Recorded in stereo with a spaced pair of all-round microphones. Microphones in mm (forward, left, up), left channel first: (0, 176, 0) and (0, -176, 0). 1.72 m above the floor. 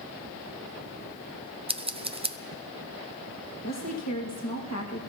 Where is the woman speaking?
50° left (ahead or behind), 1.9 m.